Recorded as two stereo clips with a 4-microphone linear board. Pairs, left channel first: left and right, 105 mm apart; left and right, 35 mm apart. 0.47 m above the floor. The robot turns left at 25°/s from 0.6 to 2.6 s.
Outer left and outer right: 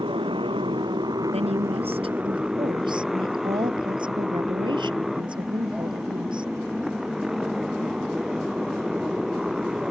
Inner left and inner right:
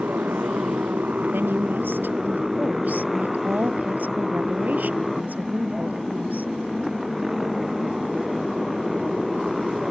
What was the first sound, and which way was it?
A motorcycle, 125° right.